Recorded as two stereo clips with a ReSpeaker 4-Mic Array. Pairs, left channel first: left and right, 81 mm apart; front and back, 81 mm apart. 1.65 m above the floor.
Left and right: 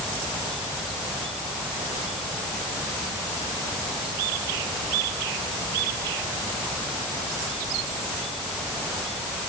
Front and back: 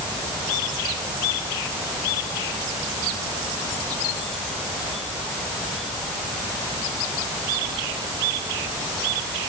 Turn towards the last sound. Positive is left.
No sound to turn to.